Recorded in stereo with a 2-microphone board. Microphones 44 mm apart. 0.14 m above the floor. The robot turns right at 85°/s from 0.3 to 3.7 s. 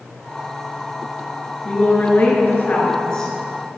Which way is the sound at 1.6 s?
30° left.